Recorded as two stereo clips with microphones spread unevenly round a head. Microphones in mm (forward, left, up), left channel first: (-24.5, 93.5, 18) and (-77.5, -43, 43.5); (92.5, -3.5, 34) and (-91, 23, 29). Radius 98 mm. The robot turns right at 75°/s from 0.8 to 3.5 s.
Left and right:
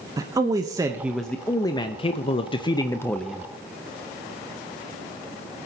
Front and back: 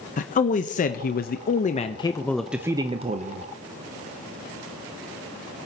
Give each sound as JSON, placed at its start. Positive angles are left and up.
{"t": 0.2, "sound": "a man speaking", "azimuth_deg": -40, "distance_m": 0.6}